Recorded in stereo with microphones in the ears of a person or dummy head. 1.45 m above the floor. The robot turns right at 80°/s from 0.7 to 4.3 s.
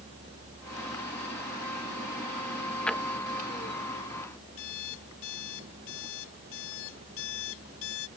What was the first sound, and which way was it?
A drawer, 5° left (ahead or behind).